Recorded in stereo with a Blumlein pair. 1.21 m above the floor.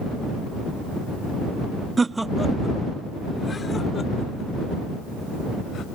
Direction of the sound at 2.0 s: 15° right.